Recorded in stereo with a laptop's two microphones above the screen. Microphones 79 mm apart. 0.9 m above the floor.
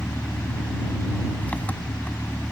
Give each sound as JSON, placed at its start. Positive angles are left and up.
{"t": 0.0, "sound": "an engine running", "side_deg": 20}